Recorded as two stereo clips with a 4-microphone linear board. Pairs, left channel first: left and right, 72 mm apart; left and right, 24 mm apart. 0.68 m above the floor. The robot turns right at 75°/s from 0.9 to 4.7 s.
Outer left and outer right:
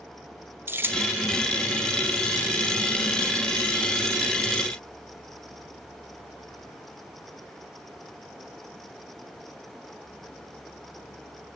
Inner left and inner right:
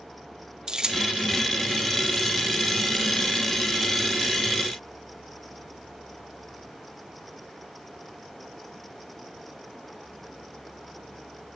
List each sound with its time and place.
0.7 s keys jangling: 30° right (ahead or behind), 1.8 m; by 1.1 s 45° right (ahead or behind), 1.8 m